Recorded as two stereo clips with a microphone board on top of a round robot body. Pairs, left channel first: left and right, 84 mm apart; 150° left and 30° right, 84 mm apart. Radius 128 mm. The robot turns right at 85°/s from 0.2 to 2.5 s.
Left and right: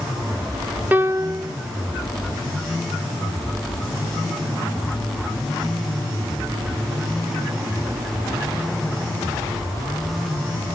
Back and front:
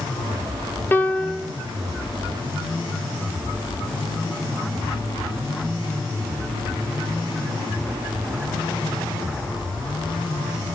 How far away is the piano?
About 0.7 m.